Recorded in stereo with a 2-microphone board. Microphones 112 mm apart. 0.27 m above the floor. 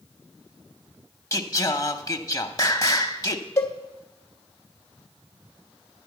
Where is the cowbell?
25° left (ahead or behind), 1.1 m.